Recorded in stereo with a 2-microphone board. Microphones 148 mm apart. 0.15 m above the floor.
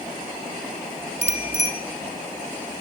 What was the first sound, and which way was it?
A bicycle bell, 45° left (ahead or behind).